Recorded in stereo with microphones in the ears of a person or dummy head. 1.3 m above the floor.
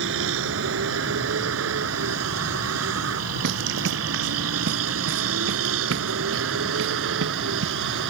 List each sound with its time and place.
0.0 s a vehicle: 65° right (ahead or behind); by 8.1 s 80° right
3.4 s running footsteps: 65° right (ahead or behind); by 7.7 s 80° right